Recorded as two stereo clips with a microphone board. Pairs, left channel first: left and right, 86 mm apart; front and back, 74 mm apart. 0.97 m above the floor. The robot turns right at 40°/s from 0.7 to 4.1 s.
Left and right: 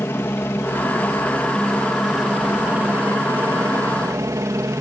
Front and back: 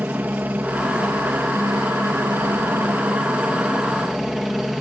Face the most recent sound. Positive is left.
turn(degrees=-95)